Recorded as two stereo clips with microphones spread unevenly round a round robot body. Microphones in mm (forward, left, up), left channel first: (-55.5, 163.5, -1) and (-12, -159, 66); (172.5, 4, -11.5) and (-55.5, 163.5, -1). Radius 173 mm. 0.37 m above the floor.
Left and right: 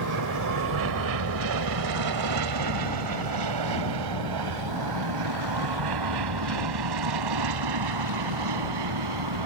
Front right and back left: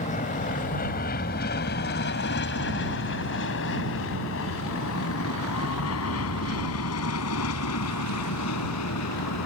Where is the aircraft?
95° right; by 9.5 s 75° right.